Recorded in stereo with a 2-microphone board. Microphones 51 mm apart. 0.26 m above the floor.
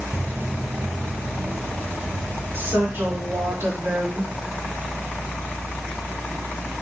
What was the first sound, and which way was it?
Footsteps, 40° right (ahead or behind).